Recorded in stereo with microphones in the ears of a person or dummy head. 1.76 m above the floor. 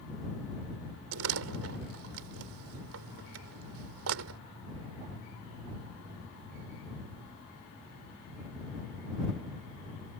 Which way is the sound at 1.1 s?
80° right.